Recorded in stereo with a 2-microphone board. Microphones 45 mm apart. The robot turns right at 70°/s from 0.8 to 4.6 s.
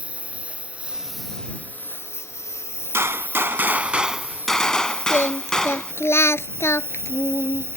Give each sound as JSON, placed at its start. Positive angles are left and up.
{"t": 0.0, "sound": "a lawn mower", "azimuth_deg": -25}
{"t": 2.9, "sound": "a gunshot", "azimuth_deg": -100}
{"t": 5.1, "sound": "singing", "side_deg": 65}